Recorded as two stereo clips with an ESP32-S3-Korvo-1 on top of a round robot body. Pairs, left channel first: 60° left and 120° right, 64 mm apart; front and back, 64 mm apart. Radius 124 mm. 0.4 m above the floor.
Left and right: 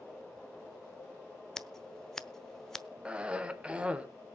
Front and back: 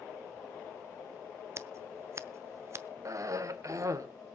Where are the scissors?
145° left, 1.0 m.